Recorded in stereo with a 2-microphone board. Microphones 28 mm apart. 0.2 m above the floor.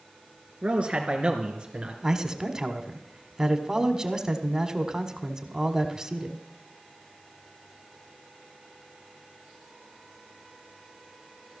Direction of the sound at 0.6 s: 45° right (ahead or behind).